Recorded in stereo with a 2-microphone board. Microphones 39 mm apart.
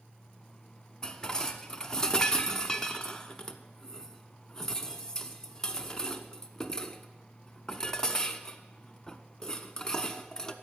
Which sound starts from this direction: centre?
Dishes clattering, at 1.0 s.